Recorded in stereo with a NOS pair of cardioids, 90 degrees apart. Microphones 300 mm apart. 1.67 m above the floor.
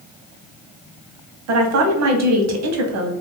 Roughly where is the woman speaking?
Ahead right.